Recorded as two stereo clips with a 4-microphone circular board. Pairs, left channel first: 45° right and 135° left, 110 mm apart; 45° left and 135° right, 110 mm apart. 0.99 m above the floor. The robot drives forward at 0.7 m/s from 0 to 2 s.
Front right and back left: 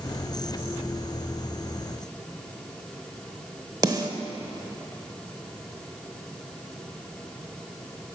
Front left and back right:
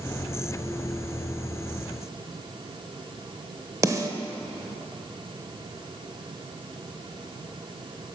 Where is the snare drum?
175° left, 0.9 m.